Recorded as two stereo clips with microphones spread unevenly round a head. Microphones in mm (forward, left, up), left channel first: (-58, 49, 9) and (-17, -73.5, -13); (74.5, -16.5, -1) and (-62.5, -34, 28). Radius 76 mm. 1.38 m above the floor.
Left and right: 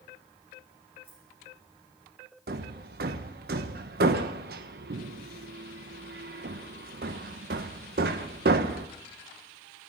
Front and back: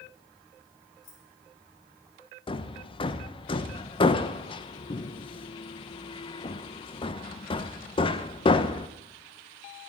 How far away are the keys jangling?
About 4.5 m.